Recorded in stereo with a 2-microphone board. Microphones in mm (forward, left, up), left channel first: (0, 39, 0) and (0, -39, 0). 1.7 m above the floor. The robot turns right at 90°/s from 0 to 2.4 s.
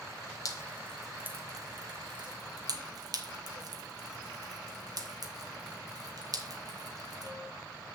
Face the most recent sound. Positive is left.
turn(degrees=-50)  # may be behind; listen again after turning